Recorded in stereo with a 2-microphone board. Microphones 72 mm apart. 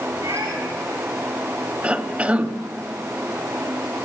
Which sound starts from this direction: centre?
A cough, at 1.8 s.